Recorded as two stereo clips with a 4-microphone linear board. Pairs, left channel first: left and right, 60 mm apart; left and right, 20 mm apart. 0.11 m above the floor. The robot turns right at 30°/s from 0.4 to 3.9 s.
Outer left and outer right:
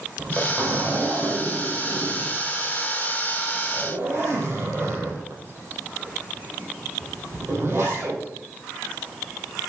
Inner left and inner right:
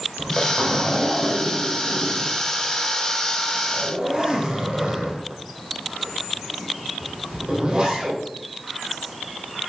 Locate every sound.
0.2 s a zipper: 35° right (ahead or behind), 3.5 m; by 8.2 s 30° right (ahead or behind), 3.5 m